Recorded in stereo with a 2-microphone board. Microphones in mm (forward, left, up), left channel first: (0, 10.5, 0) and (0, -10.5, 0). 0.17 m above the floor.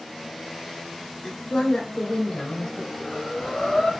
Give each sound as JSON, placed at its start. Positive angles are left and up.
{"t": 1.2, "sound": "a woman speaking", "side_deg": 55, "distance_m": 2.5}
{"t": 3.0, "sound": "breathing", "side_deg": 35, "distance_m": 3.0}